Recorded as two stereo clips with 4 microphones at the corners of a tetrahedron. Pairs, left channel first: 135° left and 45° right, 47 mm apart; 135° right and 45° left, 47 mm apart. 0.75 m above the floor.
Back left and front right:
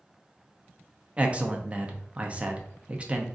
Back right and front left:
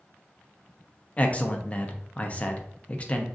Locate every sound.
1.2 s a man speaking: 85° right, 0.5 m